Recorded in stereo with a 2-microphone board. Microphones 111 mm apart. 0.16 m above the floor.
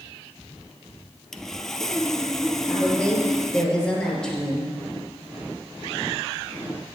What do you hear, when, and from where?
1.3 s sawing: 5° left (ahead or behind), 0.7 m
2.6 s a woman speaking: 10° left (ahead or behind), 3 m